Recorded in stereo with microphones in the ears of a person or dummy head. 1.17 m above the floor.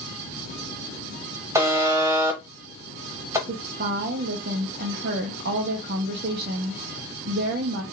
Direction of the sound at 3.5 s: 50° right (ahead or behind).